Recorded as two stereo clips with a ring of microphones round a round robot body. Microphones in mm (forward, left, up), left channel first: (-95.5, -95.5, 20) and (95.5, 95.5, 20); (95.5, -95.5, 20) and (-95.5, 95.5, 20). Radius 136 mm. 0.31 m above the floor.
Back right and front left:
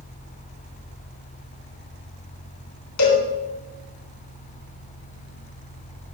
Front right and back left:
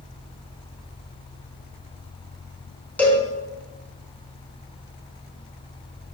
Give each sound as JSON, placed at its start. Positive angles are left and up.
{"t": 3.0, "sound": "a cowbell", "azimuth_deg": -130, "distance_m": 3.5}